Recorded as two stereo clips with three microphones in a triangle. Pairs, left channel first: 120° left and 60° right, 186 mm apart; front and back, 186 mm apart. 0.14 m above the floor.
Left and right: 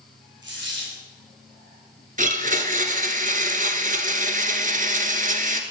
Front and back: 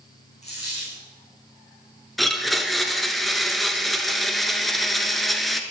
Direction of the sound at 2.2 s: 90° right.